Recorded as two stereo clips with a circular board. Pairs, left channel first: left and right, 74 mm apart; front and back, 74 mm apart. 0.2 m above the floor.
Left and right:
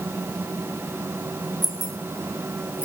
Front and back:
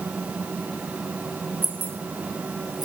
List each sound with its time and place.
1.6 s keys jangling: 115° right, 2.5 m; by 2.9 s 160° right, 2.5 m